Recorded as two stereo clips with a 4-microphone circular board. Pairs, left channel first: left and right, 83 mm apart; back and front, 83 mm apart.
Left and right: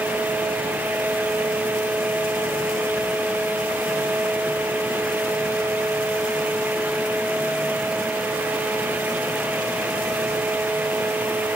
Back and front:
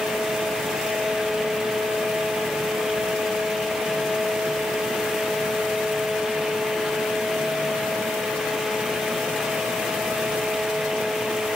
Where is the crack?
I don't hear a crack.